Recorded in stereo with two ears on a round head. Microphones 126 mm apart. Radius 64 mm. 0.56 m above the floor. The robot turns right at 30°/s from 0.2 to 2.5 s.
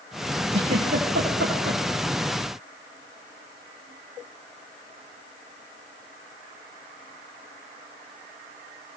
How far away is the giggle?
About 9.5 m.